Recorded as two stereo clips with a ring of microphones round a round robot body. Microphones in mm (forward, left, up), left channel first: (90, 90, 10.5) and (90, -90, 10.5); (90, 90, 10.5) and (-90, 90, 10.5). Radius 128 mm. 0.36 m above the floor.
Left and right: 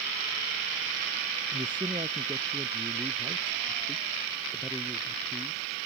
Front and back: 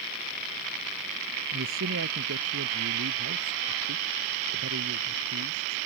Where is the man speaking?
160° right; by 5.8 s straight behind.